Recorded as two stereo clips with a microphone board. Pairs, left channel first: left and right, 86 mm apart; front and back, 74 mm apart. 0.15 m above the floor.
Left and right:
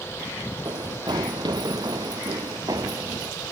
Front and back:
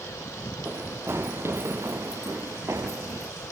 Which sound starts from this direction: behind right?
Running footsteps, at 0.7 s.